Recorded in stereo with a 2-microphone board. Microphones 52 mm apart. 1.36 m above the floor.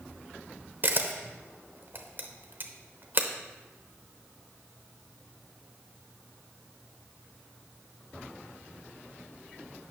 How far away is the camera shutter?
About 0.7 m.